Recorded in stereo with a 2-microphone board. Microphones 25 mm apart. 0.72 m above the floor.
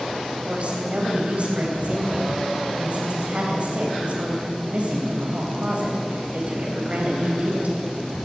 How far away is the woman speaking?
About 4 m.